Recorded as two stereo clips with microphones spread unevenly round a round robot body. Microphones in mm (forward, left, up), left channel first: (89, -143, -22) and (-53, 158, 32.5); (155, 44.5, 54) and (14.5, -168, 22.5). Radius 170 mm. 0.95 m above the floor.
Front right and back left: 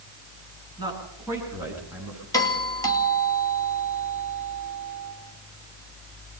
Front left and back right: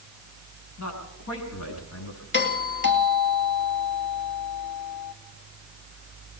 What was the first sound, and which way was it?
A man speaking, 35° left.